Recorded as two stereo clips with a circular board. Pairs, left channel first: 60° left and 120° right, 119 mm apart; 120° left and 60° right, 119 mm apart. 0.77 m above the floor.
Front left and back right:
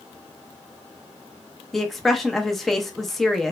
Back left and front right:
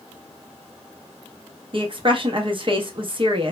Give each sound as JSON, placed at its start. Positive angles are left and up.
{"t": 1.7, "sound": "a woman speaking", "azimuth_deg": -30, "distance_m": 0.6}